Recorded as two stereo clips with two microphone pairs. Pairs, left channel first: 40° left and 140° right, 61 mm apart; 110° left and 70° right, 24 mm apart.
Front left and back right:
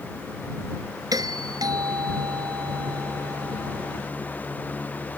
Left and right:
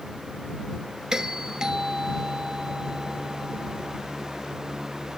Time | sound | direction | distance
1.1 | a doorbell | 130° right | ?